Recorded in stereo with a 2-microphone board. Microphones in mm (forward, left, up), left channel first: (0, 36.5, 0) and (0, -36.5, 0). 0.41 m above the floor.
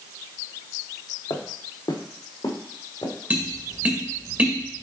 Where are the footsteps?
75° left (ahead or behind), 1.4 m; by 3.1 s 80° left, 2.5 m.